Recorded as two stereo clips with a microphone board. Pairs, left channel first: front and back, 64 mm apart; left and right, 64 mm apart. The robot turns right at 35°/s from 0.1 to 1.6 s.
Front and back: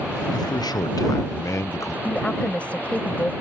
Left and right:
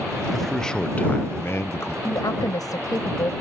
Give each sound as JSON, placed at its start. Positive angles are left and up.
{"t": 0.3, "sound": "a man speaking", "azimuth_deg": 0}
{"t": 2.0, "sound": "a woman speaking", "azimuth_deg": 70}